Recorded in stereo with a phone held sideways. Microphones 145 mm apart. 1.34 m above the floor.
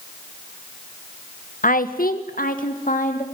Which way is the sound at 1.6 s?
65° left (ahead or behind).